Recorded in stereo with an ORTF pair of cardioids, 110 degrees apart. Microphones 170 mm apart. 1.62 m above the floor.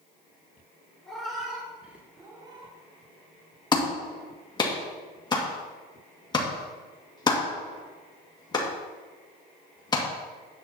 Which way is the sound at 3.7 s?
25° left.